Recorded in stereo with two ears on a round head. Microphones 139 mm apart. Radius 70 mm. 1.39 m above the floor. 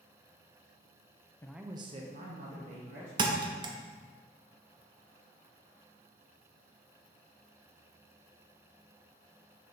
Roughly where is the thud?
Right.